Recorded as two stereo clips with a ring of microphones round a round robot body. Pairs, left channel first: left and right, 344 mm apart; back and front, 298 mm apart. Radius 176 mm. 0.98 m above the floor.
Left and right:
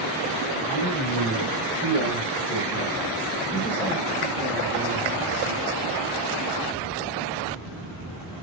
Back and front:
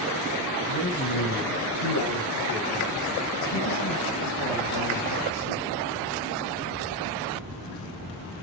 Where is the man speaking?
150° left, 5.5 m; by 5.7 s 155° right, 3.5 m.